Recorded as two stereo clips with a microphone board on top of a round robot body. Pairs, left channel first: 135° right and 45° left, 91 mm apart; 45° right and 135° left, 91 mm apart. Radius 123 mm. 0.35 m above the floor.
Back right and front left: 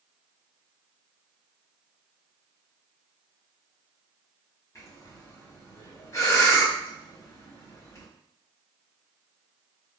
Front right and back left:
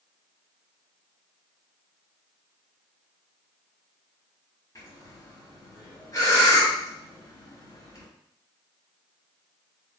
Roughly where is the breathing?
Right.